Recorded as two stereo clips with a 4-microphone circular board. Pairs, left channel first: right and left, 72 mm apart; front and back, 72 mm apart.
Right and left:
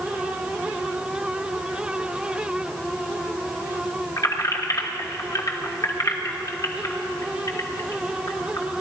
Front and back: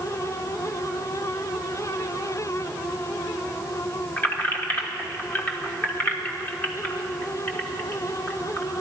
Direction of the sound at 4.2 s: 60° right.